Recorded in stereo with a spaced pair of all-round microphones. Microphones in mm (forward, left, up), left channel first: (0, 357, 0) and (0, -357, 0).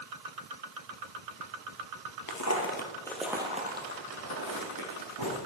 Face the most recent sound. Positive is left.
turn(degrees=-30)  # may be behind; listen again after turning